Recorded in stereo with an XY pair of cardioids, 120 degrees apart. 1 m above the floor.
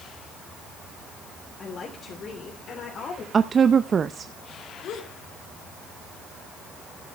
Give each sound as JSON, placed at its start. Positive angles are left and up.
{"t": 1.6, "sound": "a woman speaking", "azimuth_deg": 40, "distance_m": 3.0}
{"t": 3.3, "sound": "a woman speaking", "azimuth_deg": -35, "distance_m": 0.6}
{"t": 4.8, "sound": "a gasp", "azimuth_deg": 70, "distance_m": 2.5}